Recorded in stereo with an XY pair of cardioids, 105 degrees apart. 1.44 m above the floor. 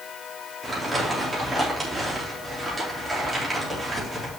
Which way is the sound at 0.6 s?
15° right.